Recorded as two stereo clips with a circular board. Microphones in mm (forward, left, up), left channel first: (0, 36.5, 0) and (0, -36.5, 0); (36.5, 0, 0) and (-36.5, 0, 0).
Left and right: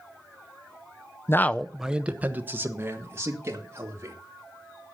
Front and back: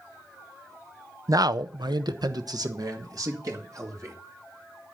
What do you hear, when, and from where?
1.3 s a man speaking: 140° left, 0.5 m; by 4.2 s 140° right, 3 m